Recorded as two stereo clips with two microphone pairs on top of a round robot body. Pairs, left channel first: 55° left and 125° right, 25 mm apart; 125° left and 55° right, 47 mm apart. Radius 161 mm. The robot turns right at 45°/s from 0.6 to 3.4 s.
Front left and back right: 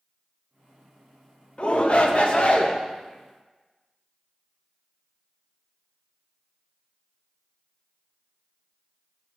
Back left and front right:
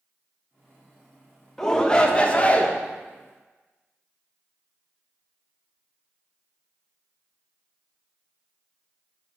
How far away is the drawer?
No drawer in this recording.